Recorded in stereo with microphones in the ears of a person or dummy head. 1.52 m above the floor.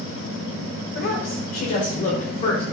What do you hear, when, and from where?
0.9 s a woman speaking: 65° left (ahead or behind), 5.5 m; by 2.6 s 50° left (ahead or behind), 5.5 m